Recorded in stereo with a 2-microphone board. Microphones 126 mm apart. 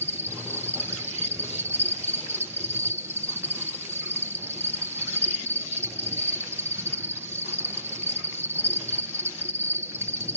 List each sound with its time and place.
0.0 s an insect: 20° right (ahead or behind), 1.5 m